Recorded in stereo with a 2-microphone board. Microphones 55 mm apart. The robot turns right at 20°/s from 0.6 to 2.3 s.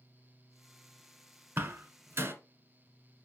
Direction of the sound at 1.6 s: 35° right (ahead or behind).